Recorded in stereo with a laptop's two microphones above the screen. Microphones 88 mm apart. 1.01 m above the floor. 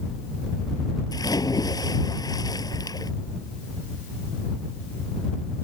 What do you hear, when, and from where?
1.1 s a splash: 45° left (ahead or behind)